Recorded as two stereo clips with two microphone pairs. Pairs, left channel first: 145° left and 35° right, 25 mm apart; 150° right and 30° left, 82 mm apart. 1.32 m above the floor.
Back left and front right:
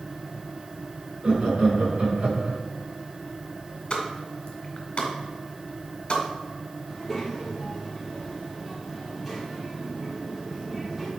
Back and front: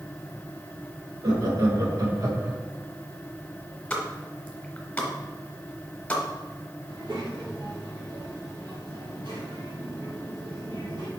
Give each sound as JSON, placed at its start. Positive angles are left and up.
{"t": 1.2, "sound": "laughter", "azimuth_deg": -5, "distance_m": 2.0}
{"t": 3.9, "sound": "a pop", "azimuth_deg": 140, "distance_m": 1.4}
{"t": 6.9, "sound": "a child speaking", "azimuth_deg": 50, "distance_m": 2.0}